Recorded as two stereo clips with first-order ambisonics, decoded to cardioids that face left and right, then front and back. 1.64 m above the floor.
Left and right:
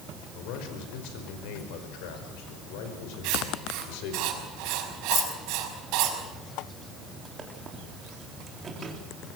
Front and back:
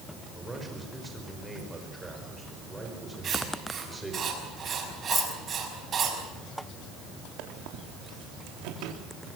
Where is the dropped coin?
65° left, 1.0 m.